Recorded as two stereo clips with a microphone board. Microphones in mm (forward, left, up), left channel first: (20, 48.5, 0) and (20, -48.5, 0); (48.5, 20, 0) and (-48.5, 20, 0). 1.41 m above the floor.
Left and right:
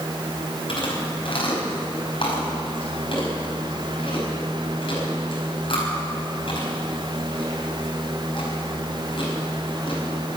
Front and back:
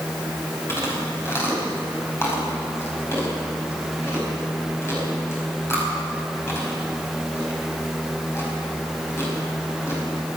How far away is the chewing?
About 4.5 m.